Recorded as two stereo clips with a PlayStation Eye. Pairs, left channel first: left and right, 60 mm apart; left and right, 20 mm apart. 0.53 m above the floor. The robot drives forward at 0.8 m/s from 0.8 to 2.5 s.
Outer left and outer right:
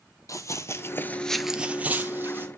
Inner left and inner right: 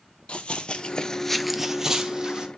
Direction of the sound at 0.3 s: 60° left (ahead or behind).